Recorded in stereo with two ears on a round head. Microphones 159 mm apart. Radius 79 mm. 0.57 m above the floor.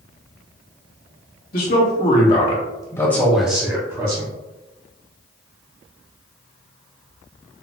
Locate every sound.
1.5 s a man speaking: 55° left (ahead or behind), 1.2 m; by 4.3 s 30° right (ahead or behind), 1.0 m